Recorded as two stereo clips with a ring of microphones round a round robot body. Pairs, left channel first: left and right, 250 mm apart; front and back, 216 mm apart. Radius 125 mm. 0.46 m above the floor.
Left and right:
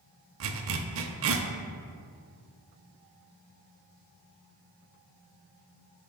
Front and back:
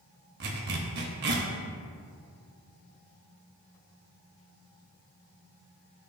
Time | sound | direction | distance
0.4 | a zipper | 130° right | 0.6 m